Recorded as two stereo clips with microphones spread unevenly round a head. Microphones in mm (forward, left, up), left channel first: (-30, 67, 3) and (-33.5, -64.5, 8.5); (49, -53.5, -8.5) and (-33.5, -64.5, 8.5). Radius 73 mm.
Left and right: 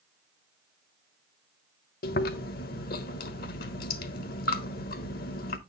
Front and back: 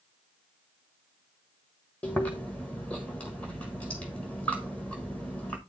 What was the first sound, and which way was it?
Chewing, 95° left.